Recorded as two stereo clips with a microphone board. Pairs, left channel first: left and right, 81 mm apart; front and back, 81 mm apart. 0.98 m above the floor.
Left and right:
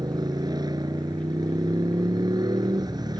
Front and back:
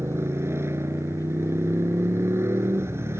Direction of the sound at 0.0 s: 120° right.